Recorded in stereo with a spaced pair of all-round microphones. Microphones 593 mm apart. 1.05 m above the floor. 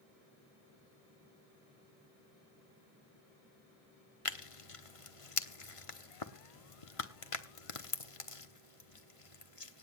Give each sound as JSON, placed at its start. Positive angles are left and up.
{"t": 4.2, "sound": "tearing paper", "side_deg": 60, "distance_m": 1.2}